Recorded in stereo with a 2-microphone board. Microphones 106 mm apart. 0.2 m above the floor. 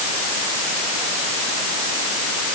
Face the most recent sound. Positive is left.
No sound to turn to.